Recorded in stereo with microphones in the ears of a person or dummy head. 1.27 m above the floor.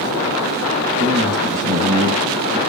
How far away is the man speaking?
About 1.5 m.